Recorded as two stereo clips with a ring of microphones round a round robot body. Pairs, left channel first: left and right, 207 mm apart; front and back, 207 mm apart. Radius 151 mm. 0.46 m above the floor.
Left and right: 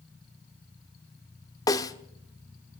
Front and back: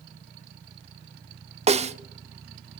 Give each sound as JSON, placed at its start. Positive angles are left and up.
{"t": 1.7, "sound": "a snare drum", "azimuth_deg": 150, "distance_m": 1.0}